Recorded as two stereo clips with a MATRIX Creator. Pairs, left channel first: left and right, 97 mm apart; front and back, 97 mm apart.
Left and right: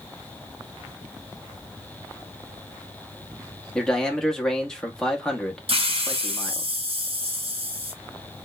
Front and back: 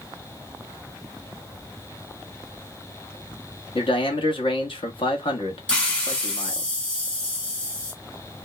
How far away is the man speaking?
About 0.9 m.